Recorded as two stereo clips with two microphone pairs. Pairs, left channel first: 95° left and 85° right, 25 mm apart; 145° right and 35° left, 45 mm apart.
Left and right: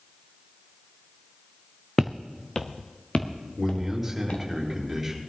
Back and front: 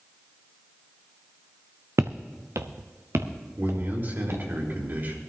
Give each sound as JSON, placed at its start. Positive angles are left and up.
{"t": 2.0, "sound": "footsteps", "azimuth_deg": 15, "distance_m": 0.8}
{"t": 3.6, "sound": "a man speaking", "azimuth_deg": 0, "distance_m": 4.0}